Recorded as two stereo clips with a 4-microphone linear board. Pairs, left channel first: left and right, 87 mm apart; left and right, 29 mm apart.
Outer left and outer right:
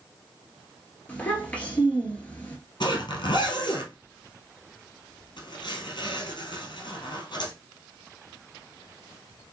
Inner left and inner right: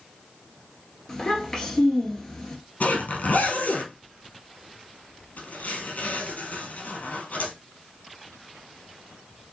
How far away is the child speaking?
About 1.8 m.